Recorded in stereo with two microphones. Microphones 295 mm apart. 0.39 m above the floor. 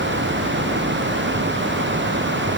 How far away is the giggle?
I don't hear a giggle.